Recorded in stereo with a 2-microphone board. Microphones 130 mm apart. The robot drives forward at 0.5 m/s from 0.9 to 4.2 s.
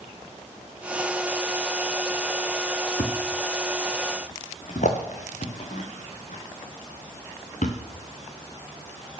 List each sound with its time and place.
3.0 s a thud: 85° left, 2.5 m; by 7.8 s 70° left (ahead or behind), 3 m